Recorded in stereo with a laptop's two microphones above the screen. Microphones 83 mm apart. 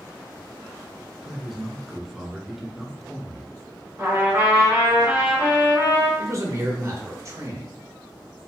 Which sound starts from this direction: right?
A man speaking, at 6.2 s.